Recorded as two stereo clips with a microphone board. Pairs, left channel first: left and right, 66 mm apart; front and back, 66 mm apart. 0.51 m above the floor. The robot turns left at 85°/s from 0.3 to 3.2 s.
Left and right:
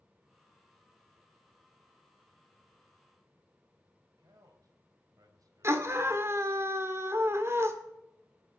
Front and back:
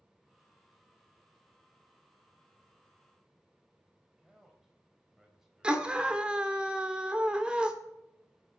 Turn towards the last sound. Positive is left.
turn(degrees=-115)